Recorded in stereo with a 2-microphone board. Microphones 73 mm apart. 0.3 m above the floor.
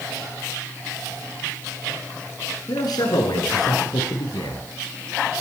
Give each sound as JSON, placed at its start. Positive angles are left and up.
{"t": 2.7, "sound": "a man speaking", "side_deg": 65, "distance_m": 3.5}